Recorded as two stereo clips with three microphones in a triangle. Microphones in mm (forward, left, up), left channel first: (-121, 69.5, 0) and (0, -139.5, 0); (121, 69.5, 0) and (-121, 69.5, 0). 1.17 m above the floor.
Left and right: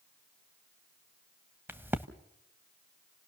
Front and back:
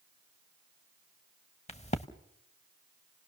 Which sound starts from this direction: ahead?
A crack, at 1.7 s.